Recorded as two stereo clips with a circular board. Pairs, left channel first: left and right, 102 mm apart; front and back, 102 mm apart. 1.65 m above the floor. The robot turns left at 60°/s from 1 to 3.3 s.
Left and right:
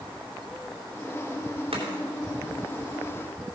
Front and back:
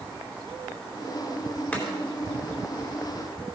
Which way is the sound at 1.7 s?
75° right.